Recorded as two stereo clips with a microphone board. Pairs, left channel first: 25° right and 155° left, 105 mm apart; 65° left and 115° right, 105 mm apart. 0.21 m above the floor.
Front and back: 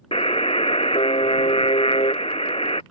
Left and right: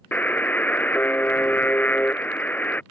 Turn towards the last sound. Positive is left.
turn(degrees=-5)